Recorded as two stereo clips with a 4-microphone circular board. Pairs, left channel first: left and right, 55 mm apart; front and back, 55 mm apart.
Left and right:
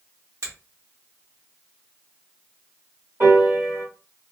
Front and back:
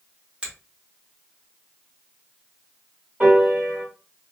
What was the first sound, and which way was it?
A finger snap, 110° right.